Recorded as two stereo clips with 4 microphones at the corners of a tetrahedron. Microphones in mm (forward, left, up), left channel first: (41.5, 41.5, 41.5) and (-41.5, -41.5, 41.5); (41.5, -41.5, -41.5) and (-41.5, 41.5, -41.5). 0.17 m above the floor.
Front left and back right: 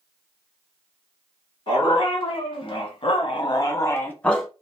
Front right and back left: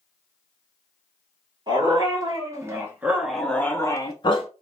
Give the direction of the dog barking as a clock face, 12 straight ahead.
9 o'clock.